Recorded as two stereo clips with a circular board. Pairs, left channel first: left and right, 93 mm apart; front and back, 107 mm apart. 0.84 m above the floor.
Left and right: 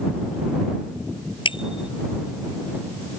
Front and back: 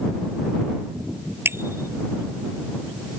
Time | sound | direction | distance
1.4 | a bicycle bell | 115° left | ?